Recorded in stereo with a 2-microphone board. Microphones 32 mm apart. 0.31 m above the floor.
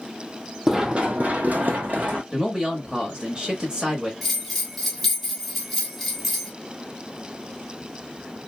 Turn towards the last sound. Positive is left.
turn(degrees=0)  # may be behind; listen again after turning